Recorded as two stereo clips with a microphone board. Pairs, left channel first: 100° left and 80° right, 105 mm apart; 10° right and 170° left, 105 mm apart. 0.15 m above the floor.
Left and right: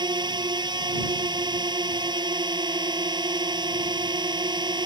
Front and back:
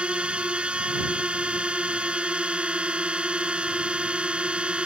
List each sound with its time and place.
0.0 s a drone: 110° right